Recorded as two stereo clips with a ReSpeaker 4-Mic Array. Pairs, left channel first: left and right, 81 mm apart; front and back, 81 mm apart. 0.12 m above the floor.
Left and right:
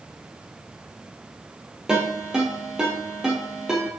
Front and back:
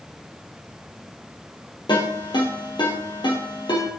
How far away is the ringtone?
About 2.5 m.